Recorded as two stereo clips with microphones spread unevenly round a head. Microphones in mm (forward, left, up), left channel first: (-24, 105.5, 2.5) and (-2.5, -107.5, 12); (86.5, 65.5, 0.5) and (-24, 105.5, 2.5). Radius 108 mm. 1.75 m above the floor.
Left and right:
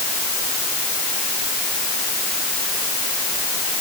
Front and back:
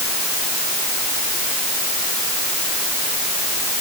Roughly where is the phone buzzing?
I don't hear a phone buzzing.